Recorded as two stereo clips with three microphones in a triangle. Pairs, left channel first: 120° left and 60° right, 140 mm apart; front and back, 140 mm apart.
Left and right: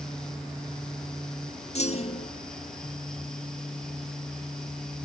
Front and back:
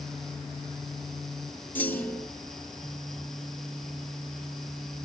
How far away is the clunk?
About 1.7 m.